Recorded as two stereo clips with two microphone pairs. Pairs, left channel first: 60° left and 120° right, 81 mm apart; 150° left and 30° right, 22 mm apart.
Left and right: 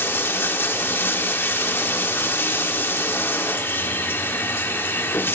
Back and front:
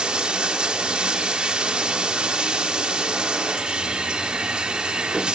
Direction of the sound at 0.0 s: Straight ahead.